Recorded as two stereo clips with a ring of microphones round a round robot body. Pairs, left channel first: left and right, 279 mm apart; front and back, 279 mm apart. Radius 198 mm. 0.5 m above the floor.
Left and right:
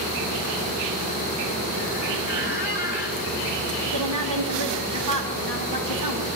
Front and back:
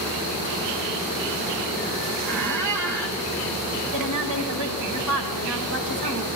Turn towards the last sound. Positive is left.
turn(degrees=-140)